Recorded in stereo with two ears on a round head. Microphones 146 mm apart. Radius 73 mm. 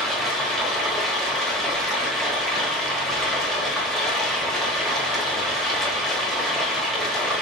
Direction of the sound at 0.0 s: 5° left (ahead or behind).